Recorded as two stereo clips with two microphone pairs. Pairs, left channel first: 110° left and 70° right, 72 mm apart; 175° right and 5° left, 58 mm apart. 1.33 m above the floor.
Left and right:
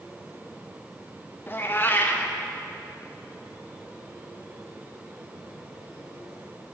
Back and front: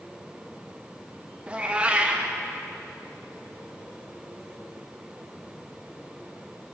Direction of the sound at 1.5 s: 65° left.